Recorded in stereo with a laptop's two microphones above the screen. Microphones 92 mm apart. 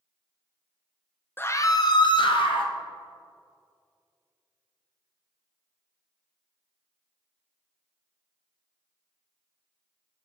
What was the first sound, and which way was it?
A scream, 20° left (ahead or behind).